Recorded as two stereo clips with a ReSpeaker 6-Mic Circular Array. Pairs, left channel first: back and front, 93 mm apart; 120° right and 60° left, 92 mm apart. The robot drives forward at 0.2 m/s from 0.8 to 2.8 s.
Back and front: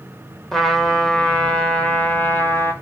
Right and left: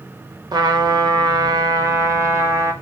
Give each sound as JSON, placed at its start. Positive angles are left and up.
{"t": 0.5, "sound": "a trumpet", "azimuth_deg": 95, "distance_m": 0.9}